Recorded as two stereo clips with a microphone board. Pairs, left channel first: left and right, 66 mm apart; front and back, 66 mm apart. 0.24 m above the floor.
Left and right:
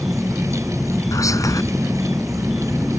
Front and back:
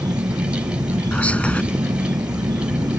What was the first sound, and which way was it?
An insect, straight behind.